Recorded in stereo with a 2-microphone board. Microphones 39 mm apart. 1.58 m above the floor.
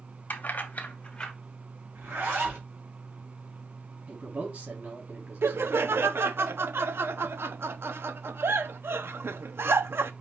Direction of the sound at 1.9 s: 75° right (ahead or behind).